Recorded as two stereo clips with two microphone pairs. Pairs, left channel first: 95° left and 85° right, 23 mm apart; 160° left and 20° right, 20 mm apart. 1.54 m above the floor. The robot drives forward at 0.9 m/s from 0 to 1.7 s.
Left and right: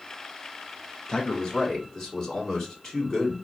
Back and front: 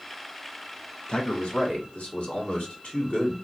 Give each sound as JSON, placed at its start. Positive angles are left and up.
{"t": 1.1, "sound": "a man speaking", "azimuth_deg": 150, "distance_m": 1.1}